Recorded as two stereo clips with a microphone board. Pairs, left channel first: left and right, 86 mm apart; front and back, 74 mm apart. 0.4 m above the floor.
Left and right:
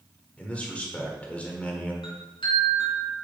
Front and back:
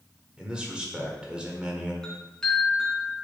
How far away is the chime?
About 2.5 m.